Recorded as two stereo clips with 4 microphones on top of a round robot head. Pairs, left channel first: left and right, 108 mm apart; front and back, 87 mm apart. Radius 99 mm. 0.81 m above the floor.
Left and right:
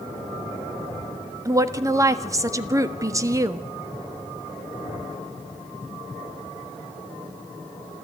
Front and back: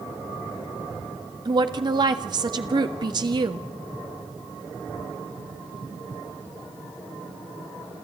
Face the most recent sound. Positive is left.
turn(degrees=-150)